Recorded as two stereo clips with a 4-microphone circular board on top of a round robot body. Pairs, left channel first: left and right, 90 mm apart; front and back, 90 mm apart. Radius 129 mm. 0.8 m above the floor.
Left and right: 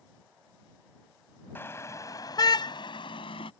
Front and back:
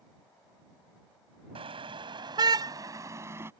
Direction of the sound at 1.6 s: 160° left.